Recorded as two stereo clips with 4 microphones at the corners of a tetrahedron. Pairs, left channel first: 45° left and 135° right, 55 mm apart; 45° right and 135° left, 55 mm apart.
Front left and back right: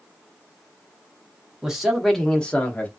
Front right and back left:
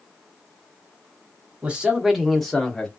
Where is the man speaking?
165° left, 1.1 m; by 2.9 s 15° left, 1.2 m.